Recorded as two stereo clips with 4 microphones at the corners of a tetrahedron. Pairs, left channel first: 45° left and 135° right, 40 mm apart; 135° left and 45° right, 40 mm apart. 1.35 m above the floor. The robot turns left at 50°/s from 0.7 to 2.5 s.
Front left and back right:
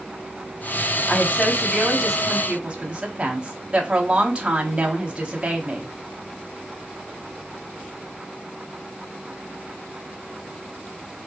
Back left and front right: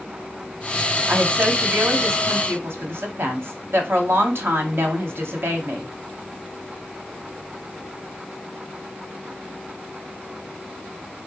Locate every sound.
1.1 s a woman speaking: straight ahead, 1.1 m; by 5.9 s 70° right, 1.1 m